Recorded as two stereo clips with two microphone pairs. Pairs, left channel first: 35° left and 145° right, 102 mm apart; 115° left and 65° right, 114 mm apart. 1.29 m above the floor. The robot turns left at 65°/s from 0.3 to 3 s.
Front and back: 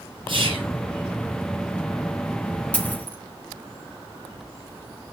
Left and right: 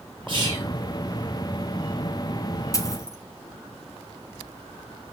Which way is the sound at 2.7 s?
100° left.